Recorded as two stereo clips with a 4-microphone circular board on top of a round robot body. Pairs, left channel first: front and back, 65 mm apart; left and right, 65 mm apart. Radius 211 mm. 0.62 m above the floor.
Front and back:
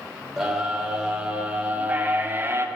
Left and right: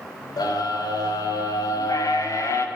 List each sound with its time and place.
0.4 s a scream: 95° left, 3 m; by 2.7 s 130° left, 1.9 m